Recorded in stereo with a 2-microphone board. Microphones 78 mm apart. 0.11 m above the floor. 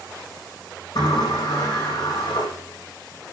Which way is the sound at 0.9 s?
70° left (ahead or behind).